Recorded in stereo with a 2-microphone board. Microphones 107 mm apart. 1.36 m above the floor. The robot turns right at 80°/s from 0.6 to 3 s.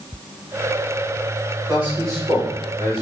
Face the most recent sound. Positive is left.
turn(degrees=-75)